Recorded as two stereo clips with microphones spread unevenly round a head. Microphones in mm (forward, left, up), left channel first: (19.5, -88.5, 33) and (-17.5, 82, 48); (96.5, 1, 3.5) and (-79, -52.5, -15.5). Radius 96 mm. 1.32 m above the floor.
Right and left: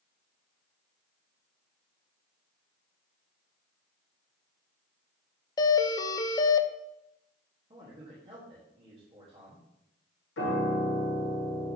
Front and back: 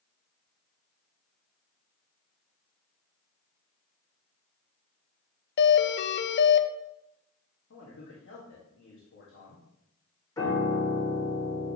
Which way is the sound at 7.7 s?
40° left.